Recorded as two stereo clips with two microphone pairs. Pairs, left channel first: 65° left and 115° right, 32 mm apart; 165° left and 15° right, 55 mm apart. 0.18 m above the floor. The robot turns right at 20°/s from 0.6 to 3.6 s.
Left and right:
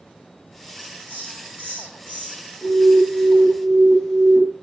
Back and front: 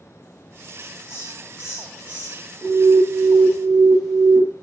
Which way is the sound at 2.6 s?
65° left.